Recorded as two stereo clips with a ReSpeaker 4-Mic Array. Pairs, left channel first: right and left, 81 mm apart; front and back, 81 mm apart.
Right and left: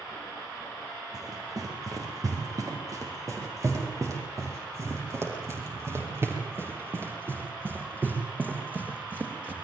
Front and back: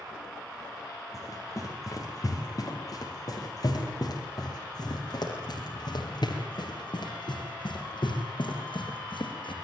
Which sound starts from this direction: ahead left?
Running footsteps, at 1.1 s.